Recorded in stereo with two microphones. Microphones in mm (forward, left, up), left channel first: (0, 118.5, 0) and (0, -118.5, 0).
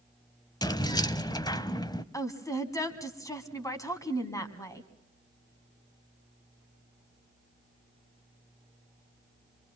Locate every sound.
0.6 s keys jangling: 15° left (ahead or behind), 0.7 m
2.1 s a woman speaking: 15° left (ahead or behind), 1.9 m